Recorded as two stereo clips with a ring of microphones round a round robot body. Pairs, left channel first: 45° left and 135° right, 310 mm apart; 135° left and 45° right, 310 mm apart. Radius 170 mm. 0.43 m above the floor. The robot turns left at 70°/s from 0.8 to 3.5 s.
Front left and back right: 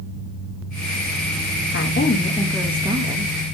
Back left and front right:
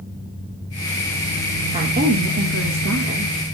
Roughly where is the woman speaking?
Ahead.